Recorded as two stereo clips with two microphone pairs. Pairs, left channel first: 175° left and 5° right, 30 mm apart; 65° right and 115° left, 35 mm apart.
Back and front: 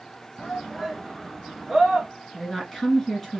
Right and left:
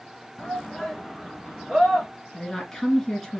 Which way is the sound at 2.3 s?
135° right.